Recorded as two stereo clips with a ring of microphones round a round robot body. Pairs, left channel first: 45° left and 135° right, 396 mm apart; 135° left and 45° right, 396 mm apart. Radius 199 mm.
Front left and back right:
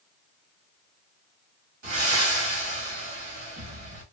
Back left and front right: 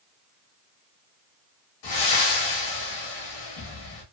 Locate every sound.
1.8 s breathing: 170° left, 1.3 m